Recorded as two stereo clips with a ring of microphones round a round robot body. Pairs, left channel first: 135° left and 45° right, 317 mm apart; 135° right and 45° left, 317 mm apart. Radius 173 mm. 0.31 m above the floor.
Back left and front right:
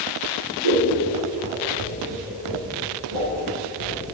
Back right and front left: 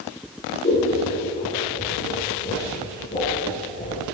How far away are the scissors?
About 3.5 m.